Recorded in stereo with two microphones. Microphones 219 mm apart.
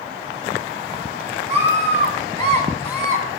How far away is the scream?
About 6 m.